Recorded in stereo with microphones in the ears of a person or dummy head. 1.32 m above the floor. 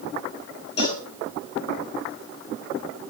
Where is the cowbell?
35° left (ahead or behind), 5 m.